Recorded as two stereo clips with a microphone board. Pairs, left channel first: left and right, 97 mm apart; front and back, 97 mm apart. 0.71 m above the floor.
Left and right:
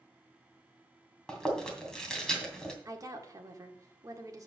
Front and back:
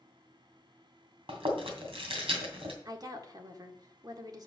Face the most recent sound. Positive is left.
turn(degrees=-140)